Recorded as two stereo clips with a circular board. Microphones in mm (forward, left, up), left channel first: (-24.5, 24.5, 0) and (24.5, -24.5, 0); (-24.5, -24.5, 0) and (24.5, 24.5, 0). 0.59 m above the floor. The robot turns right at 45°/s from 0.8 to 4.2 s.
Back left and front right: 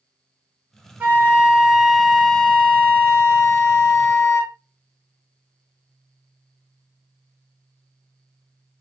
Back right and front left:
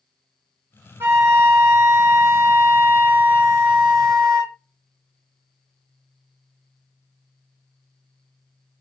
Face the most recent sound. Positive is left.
turn(degrees=150)